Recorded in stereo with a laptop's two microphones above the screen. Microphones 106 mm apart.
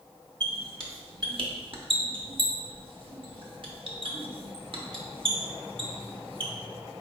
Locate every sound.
0.4 s a squeak: 55° right (ahead or behind), 0.8 m